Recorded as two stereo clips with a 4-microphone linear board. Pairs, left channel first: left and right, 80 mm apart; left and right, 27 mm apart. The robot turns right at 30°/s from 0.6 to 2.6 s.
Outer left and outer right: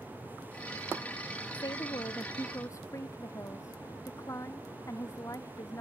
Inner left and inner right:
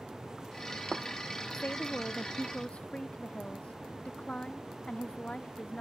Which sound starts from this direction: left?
A woman speaking, at 1.5 s.